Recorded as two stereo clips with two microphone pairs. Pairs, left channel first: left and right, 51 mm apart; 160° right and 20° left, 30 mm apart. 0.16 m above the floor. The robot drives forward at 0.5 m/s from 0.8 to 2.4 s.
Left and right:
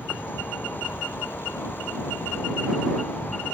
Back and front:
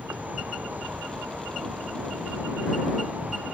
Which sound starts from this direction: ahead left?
An insect, at 0.0 s.